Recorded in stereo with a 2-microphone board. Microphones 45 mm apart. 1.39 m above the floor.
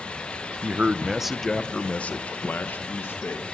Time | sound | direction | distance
0.6 | a man speaking | 35° right (ahead or behind) | 0.9 m